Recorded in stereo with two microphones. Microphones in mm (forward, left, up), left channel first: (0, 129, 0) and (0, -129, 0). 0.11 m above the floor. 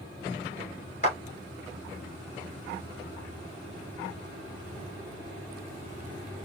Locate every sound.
1.0 s a clap: 30° left (ahead or behind), 1.5 m